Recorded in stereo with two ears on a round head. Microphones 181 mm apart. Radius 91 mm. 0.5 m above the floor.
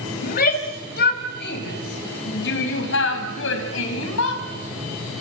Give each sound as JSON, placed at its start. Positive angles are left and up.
{"t": 0.2, "sound": "a shout", "side_deg": 45, "distance_m": 3.5}